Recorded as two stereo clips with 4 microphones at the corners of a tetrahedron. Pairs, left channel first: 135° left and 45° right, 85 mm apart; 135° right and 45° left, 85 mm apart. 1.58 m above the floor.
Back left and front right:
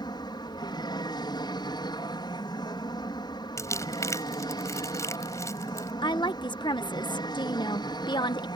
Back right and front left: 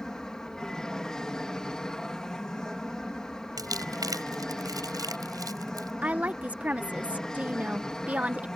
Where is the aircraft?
145° left.